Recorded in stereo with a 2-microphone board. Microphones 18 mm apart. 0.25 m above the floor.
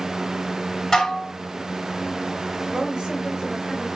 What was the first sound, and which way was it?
Dishes clattering, 25° left (ahead or behind).